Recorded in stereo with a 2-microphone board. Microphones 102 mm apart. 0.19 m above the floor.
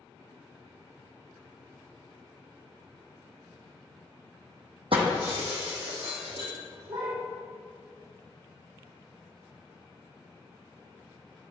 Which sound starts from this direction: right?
Breaking glass, at 4.9 s.